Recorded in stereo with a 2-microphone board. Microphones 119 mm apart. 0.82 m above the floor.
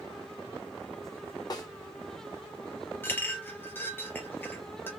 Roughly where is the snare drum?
Left.